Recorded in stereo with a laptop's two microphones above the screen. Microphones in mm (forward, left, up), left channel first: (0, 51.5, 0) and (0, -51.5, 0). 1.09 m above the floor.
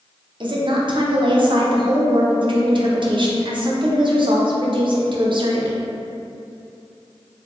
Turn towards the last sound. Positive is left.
turn(degrees=-50)  # may be behind; listen again after turning